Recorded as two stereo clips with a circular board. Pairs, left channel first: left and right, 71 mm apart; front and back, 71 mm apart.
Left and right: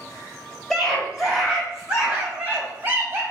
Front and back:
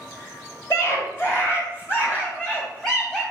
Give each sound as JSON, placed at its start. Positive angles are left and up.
{"t": 0.7, "sound": "a scream", "azimuth_deg": 5, "distance_m": 1.9}